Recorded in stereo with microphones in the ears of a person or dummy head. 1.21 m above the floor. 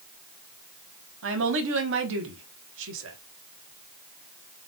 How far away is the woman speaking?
About 1.1 m.